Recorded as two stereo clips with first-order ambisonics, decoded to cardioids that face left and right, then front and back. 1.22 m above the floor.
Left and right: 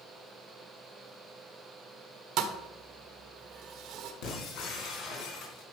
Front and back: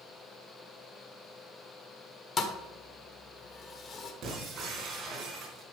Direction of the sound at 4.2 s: 120° left.